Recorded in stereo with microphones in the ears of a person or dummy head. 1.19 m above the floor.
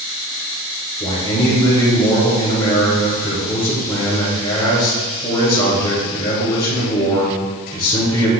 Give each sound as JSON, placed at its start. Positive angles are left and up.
{"t": 1.0, "sound": "a man speaking", "side_deg": 25, "distance_m": 3.0}